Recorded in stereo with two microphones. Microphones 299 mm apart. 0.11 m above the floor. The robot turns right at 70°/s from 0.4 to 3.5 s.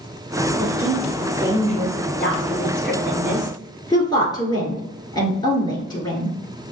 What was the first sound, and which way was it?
A woman speaking, 25° right (ahead or behind).